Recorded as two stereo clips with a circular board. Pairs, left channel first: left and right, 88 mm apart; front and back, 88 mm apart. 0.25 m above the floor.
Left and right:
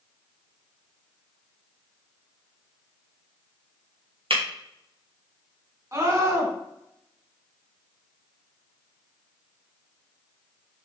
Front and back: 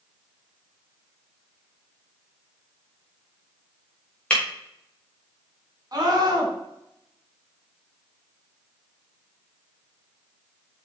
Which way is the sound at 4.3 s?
75° right.